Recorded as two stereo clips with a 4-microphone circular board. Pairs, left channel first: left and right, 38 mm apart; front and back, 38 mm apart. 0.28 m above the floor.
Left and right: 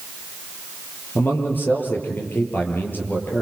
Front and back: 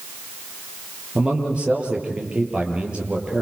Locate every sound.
1.1 s a man speaking: 120° left, 8 m